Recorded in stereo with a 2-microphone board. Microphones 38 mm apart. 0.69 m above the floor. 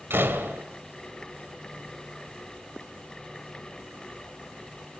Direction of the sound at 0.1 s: 75° right (ahead or behind).